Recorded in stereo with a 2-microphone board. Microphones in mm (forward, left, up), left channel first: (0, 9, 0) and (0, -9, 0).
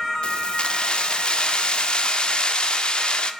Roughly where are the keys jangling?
Left.